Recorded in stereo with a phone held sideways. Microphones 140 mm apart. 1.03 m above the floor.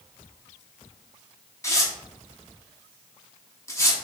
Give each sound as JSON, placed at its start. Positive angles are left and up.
{"t": 1.6, "sound": "tearing paper", "side_deg": 20, "distance_m": 0.8}